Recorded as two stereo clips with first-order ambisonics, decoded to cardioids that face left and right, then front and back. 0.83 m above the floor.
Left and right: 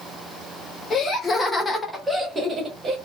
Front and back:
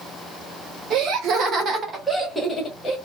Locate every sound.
0.9 s laughter: 155° left, 1.1 m; by 3.0 s 55° right, 0.8 m